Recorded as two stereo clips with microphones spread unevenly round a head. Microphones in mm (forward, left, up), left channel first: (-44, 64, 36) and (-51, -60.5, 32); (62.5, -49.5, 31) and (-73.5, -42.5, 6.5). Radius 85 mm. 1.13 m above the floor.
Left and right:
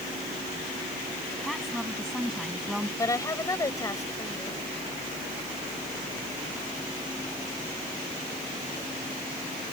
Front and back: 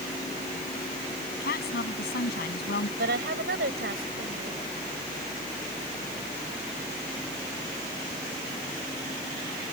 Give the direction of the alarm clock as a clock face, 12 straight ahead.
No alarm clock in this recording.